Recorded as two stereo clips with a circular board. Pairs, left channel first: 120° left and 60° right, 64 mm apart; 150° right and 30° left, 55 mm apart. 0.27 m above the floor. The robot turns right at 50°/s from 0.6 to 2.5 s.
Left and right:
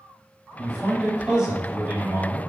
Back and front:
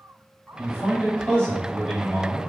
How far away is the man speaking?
About 1.5 m.